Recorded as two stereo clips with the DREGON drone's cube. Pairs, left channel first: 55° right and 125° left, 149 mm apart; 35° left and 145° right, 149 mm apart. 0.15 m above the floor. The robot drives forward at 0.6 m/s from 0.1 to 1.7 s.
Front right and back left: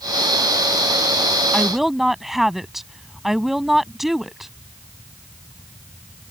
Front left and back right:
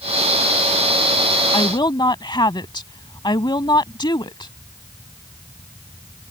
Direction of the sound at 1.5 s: 30° left.